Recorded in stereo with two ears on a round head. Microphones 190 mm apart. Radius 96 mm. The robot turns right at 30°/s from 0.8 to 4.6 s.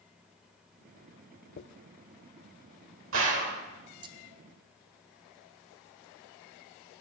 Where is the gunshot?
60° right (ahead or behind), 1.5 m; by 3.6 s 45° right (ahead or behind), 1.5 m.